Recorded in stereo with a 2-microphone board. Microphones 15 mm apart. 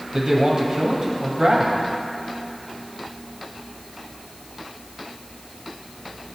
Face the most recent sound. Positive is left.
turn(degrees=-65)  # may be behind; listen again after turning